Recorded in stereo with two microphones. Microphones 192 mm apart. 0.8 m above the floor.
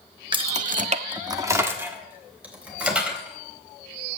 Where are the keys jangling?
25° right (ahead or behind), 0.8 m; by 4.2 s 5° right (ahead or behind), 5.5 m.